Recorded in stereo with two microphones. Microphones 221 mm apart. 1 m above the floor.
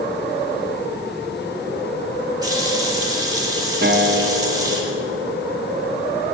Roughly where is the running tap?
Centre.